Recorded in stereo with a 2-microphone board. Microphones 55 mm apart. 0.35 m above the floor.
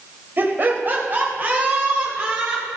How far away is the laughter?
About 2.0 m.